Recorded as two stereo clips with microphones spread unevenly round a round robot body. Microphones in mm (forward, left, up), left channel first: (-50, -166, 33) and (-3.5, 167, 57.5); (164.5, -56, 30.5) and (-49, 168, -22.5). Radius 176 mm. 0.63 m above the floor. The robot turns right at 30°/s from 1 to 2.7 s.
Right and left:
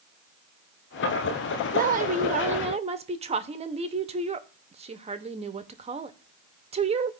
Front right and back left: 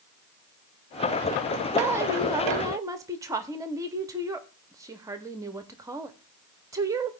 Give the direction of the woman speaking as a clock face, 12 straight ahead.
9 o'clock.